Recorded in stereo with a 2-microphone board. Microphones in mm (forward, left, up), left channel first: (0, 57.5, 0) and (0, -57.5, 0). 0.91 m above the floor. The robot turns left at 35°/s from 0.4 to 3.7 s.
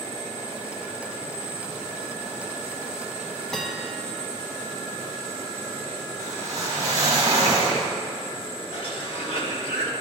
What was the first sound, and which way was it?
A bell, 5° left (ahead or behind).